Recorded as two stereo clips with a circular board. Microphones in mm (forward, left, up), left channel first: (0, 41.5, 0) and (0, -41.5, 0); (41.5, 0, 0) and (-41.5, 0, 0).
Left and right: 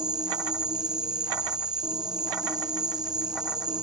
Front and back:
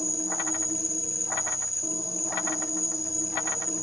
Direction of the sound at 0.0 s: 50° right.